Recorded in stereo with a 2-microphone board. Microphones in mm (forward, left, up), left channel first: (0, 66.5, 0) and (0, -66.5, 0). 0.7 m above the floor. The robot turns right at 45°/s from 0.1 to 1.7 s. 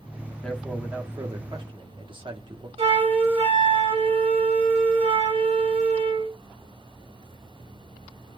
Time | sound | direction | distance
0.4 | a man speaking | 170° left | 1.3 m
2.8 | a flute | 50° right (ahead or behind) | 3.5 m